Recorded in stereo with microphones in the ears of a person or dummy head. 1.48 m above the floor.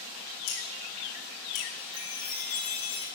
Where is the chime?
80° left, 7 m.